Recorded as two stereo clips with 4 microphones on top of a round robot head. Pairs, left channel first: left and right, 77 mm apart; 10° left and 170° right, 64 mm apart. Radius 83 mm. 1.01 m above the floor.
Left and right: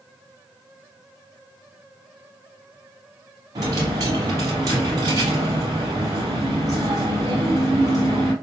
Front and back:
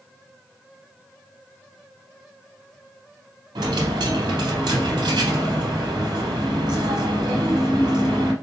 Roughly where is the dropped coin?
Behind right.